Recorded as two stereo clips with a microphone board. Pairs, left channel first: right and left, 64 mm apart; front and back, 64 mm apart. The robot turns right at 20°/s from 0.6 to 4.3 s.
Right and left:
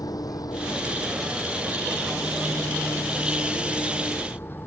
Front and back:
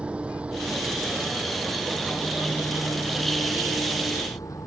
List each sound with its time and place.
0.0 s an engine running: 110° right; by 4.7 s 35° right